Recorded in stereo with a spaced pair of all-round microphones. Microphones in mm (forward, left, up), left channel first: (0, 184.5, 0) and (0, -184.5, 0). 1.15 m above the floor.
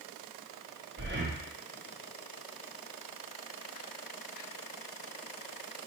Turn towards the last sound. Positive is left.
turn(degrees=-30)  # may be behind; listen again after turning